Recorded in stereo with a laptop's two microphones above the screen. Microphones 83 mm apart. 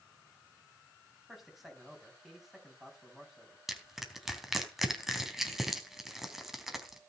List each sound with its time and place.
1.3 s a man speaking: 5° right (ahead or behind), 6.5 m
3.7 s crushing: 5° right (ahead or behind), 3 m